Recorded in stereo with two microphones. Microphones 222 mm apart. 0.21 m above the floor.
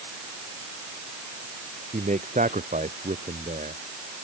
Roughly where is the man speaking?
Right.